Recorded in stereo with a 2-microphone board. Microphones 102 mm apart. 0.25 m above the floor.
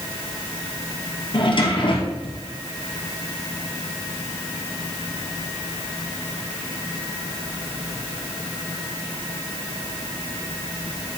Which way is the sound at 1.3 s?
55° left (ahead or behind).